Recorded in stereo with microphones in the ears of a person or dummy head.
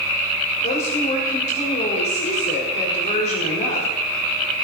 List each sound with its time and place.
0.6 s a woman speaking: 40° left (ahead or behind), 4 m